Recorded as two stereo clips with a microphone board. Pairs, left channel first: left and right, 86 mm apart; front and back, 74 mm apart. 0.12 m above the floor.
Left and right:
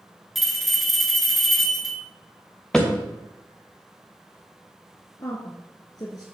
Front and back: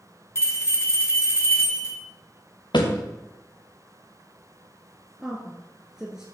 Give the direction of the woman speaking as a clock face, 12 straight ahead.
9 o'clock.